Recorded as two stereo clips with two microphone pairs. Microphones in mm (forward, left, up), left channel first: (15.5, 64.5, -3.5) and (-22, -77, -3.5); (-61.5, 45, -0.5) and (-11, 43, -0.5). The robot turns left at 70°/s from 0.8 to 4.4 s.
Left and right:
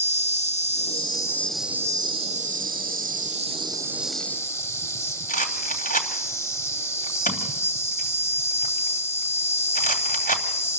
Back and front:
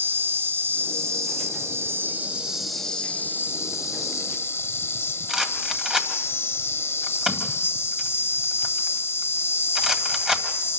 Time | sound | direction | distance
0.0 | an insect | 40° left | 1.0 m
5.3 | a rattle | 75° left | 2.5 m